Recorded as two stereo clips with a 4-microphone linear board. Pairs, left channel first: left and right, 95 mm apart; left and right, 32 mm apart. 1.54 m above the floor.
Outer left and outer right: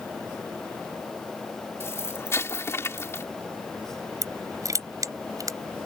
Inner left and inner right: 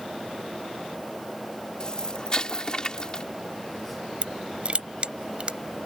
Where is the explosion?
25° left (ahead or behind).